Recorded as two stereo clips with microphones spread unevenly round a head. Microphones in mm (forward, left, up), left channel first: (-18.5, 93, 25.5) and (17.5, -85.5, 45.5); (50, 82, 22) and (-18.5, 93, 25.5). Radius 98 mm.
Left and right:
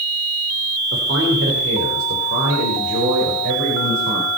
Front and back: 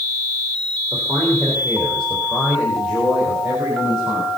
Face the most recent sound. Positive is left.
turn(degrees=-105)